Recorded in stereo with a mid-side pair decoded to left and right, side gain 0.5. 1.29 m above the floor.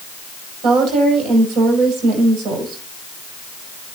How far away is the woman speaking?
About 6 m.